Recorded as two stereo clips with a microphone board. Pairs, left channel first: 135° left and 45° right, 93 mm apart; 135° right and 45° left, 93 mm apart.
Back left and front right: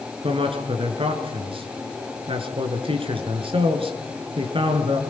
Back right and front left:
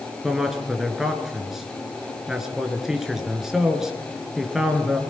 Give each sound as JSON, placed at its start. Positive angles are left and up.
{"t": 0.2, "sound": "a man speaking", "azimuth_deg": -40, "distance_m": 3.5}